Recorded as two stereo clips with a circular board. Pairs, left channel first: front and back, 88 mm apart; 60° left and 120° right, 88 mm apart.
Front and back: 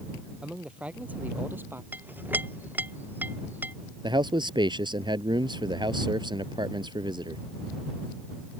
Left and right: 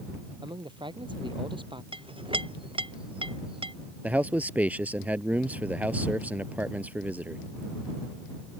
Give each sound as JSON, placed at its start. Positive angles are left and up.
{"t": 0.4, "sound": "a man speaking", "azimuth_deg": -100}
{"t": 1.9, "sound": "a clink", "azimuth_deg": -110}
{"t": 4.0, "sound": "a man speaking", "azimuth_deg": 170}